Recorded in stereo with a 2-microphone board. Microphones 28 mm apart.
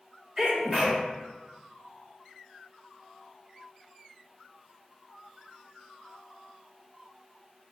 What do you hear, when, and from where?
0.4 s a sneeze: 15° right (ahead or behind), 0.9 m